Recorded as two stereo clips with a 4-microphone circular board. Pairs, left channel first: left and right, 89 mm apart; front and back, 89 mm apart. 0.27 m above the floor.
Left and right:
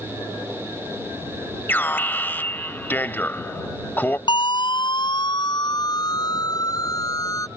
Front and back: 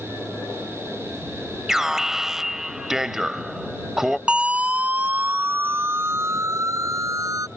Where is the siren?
105° left; by 7.5 s 135° left.